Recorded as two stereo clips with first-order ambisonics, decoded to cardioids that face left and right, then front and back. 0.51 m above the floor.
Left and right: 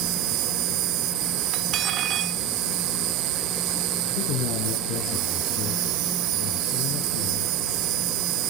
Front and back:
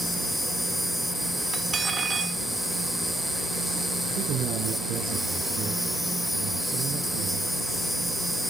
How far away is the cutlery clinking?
About 0.6 m.